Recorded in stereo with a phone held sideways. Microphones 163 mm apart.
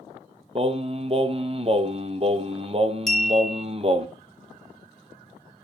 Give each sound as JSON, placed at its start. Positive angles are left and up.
{"t": 0.6, "sound": "singing", "side_deg": -35, "distance_m": 0.9}
{"t": 3.1, "sound": "a clink", "side_deg": 0, "distance_m": 2.5}